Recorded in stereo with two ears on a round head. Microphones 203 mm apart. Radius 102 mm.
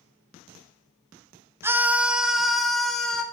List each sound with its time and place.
1.6 s a scream: 10° right (ahead or behind), 0.7 m; by 3.2 s 5° left (ahead or behind), 1.7 m